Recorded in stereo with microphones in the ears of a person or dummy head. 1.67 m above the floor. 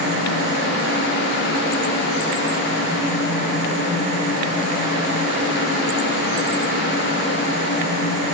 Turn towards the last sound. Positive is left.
No sound to turn to.